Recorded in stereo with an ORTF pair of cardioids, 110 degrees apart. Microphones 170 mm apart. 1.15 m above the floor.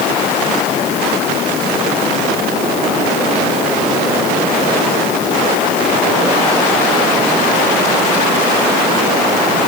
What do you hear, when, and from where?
Only background noise.